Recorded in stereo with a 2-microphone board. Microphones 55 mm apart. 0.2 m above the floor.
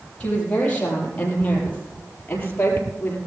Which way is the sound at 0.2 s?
20° left (ahead or behind).